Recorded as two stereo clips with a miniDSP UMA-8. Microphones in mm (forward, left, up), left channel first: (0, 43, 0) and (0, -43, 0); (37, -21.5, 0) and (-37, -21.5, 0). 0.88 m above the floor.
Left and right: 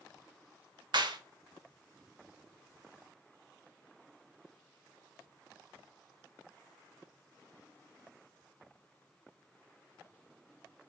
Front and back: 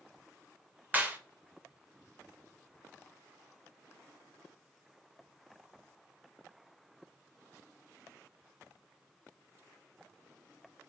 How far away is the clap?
About 0.7 m.